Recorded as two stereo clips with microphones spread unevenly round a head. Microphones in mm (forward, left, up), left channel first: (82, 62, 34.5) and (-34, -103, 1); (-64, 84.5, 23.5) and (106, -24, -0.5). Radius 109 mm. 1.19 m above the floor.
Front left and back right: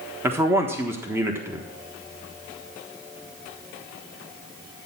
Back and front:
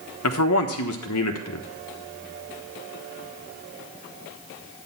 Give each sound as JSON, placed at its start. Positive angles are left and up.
{"t": 0.2, "sound": "a man speaking", "azimuth_deg": 160, "distance_m": 1.3}